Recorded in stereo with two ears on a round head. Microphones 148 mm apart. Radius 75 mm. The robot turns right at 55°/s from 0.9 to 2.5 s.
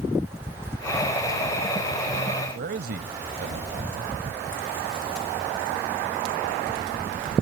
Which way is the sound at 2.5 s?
65° right (ahead or behind).